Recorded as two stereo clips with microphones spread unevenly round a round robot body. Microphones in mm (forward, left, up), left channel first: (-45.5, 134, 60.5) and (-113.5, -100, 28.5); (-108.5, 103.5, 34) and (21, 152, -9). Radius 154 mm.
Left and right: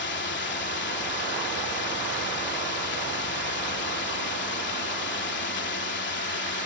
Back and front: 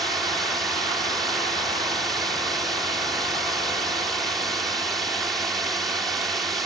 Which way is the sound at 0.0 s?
95° left.